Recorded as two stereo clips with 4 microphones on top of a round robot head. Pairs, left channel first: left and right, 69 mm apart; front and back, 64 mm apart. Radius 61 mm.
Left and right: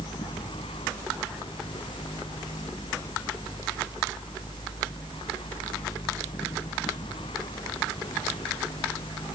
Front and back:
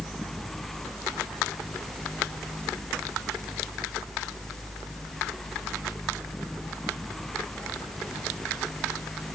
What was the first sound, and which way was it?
Only background noise.